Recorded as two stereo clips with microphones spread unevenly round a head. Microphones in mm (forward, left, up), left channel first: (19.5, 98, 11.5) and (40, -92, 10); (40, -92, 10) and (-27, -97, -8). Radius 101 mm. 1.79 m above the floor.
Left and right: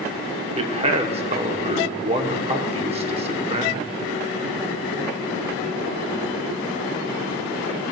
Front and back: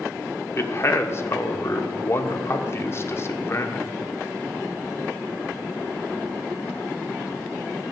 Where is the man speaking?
30° right, 1.1 m.